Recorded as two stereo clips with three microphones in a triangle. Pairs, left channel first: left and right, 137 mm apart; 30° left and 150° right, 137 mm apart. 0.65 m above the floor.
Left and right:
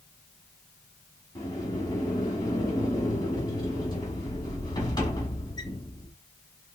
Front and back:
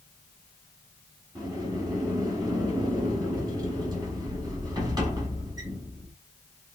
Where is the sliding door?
150° left, 1.8 m.